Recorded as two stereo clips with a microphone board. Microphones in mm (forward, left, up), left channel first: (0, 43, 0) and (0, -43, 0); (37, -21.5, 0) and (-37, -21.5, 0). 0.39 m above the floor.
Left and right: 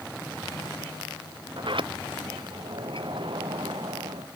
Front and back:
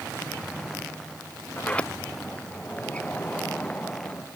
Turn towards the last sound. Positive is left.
turn(degrees=-75)